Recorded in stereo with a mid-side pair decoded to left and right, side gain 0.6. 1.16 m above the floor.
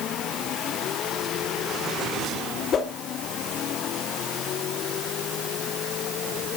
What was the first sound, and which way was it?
A whoosh, 45° left.